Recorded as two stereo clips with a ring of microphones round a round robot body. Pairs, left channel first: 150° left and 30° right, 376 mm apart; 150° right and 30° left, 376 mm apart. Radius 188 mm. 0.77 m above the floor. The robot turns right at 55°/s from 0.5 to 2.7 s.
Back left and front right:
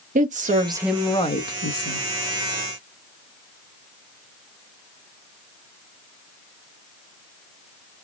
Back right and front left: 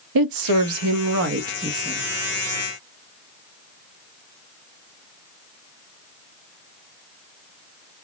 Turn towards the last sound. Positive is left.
turn(degrees=155)